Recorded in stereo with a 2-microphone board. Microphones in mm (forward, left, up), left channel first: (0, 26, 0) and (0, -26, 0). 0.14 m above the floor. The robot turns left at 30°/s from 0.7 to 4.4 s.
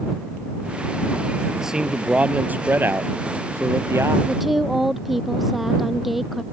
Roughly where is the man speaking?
Ahead.